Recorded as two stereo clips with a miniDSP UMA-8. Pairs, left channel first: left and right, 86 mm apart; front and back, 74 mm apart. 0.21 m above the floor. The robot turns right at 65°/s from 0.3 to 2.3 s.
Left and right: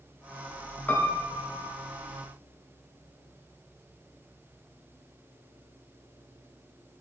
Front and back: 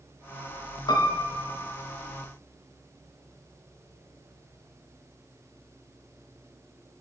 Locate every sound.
0.9 s a piano: 20° left, 0.5 m; by 1.7 s 75° left, 0.5 m